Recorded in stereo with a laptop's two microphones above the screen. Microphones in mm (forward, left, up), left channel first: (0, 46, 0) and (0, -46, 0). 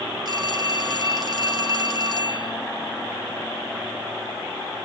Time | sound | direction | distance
0.2 | a phone ringing | 50° right (ahead or behind) | 1.3 m